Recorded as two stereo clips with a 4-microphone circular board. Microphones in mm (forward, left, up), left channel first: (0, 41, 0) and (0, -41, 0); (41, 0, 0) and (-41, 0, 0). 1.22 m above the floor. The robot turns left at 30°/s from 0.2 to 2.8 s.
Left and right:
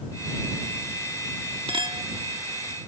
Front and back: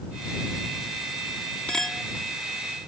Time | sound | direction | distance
1.7 | a clink | 80° right | ?